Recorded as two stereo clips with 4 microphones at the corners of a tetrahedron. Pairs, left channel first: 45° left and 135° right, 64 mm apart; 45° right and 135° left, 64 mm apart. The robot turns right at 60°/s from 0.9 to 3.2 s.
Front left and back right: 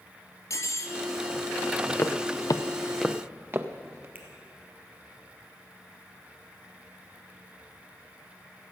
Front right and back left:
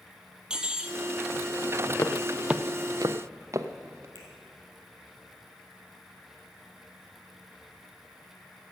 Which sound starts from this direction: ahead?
Footsteps, at 2.0 s.